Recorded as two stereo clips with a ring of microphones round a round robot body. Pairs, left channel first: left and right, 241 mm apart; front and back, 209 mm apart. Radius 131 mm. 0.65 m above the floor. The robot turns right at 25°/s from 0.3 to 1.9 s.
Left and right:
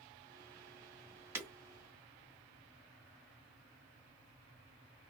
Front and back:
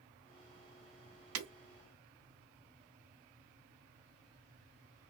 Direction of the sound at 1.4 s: 170° right.